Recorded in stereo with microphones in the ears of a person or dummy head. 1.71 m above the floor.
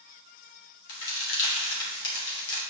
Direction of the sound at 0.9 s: 65° left (ahead or behind).